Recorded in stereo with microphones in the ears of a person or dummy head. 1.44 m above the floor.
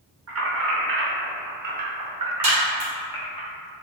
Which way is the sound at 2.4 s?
40° right (ahead or behind).